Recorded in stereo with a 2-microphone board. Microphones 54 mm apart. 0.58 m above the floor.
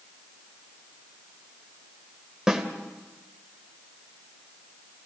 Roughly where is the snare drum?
Centre.